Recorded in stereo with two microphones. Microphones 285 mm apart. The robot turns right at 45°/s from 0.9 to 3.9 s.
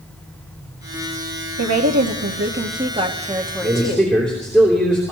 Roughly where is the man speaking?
Centre.